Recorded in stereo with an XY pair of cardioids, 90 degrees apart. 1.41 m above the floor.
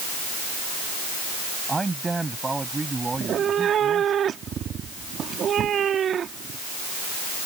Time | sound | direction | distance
1.7 | a man speaking | 25° right | ?
3.1 | a cat meowing | 65° right | ?